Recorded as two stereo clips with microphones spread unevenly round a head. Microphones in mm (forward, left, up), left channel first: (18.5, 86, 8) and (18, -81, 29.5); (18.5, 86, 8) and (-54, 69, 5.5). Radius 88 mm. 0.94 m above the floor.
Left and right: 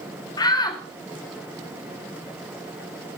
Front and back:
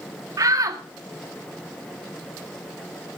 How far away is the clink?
No clink in this recording.